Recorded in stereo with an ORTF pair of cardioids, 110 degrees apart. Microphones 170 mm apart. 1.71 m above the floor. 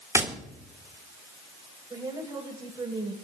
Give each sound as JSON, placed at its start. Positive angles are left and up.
{"t": 0.1, "sound": "tapping", "azimuth_deg": -20, "distance_m": 3.5}
{"t": 1.9, "sound": "a woman speaking", "azimuth_deg": -20, "distance_m": 9.0}